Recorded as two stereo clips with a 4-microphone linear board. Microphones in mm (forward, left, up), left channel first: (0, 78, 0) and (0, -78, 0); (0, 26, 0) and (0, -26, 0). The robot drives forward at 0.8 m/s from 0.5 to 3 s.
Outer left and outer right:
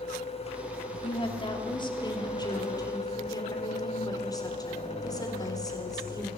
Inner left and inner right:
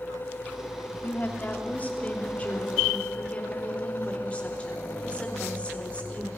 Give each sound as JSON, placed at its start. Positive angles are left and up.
{"t": 1.0, "sound": "a woman speaking", "side_deg": 35, "distance_m": 3.0}